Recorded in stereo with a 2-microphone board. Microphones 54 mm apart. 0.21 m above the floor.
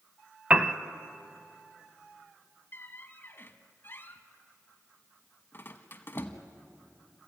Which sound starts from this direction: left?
A squeak, at 2.7 s.